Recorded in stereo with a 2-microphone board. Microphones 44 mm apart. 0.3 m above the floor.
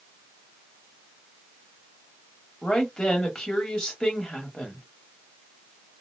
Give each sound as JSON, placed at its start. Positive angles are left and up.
{"t": 2.6, "sound": "a woman speaking", "side_deg": 15, "distance_m": 1.2}